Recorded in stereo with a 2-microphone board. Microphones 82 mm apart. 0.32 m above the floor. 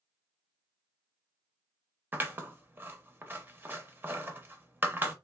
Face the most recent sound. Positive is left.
turn(degrees=-25)  # may be behind; listen again after turning